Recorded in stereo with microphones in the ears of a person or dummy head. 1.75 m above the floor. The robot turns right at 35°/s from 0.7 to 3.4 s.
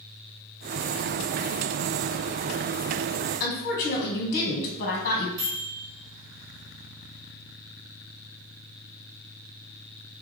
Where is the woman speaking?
45° left (ahead or behind), 1.4 m.